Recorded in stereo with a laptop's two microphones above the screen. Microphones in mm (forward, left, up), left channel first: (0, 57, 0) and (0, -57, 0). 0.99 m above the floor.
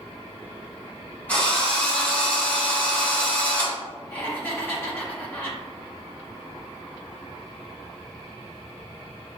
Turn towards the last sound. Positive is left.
turn(degrees=20)  # may be behind; listen again after turning